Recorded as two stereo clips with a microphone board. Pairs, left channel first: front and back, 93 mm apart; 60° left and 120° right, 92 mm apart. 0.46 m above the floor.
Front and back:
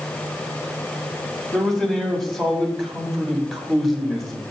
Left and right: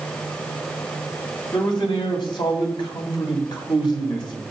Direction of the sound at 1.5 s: 90° left.